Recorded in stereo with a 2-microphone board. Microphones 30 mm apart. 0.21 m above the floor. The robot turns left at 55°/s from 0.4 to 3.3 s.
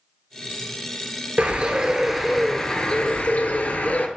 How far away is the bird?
About 0.5 m.